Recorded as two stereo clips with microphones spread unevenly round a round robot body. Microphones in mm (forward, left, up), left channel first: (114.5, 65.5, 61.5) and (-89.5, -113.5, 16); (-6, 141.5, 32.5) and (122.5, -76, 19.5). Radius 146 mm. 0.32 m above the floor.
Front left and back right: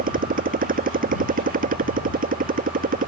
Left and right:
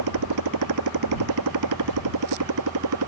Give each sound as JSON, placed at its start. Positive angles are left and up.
{"t": 0.0, "sound": "a motorcycle", "azimuth_deg": -80}